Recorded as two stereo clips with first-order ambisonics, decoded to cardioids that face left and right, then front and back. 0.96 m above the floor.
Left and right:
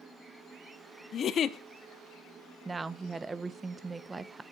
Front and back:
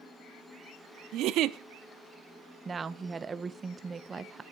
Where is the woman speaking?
150° right, 0.5 m.